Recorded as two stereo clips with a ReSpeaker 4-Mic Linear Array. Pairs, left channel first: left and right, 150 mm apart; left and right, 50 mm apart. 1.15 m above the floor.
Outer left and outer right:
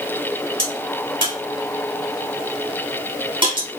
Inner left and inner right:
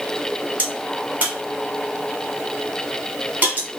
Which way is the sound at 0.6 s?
35° right (ahead or behind).